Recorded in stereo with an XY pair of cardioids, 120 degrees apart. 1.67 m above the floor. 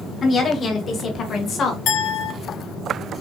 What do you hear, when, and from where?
0.2 s a woman speaking: 35° left, 2 m; by 1.8 s 55° left, 1.4 m
1.9 s a clink: 70° left, 3.5 m